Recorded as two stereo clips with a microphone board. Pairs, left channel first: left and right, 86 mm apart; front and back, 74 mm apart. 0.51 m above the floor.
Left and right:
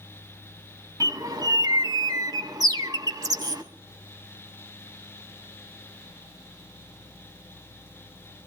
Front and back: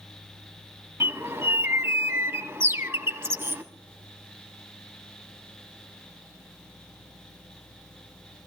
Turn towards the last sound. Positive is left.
turn(degrees=-125)